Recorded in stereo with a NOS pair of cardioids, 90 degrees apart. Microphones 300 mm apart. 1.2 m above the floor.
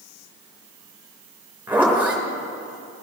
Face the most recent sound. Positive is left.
turn(degrees=-5)